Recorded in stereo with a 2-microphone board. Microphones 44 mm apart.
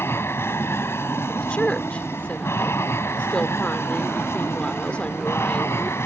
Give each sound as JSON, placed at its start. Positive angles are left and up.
{"t": 0.0, "sound": "an aircraft", "side_deg": 65}
{"t": 1.3, "sound": "a woman speaking", "side_deg": 25}